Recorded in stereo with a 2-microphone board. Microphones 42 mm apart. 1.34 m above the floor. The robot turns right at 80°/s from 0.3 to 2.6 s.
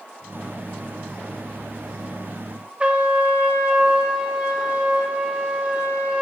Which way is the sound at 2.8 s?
30° right (ahead or behind).